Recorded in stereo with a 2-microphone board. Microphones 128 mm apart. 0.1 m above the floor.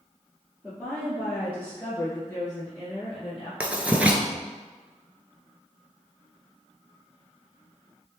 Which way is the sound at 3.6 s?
10° right (ahead or behind).